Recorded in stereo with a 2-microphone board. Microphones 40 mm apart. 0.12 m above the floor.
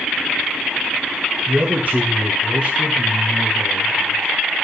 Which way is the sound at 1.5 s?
40° right (ahead or behind).